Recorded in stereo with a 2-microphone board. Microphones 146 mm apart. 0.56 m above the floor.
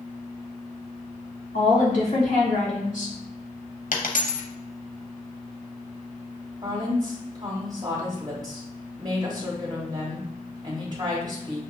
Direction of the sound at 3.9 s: 65° left (ahead or behind).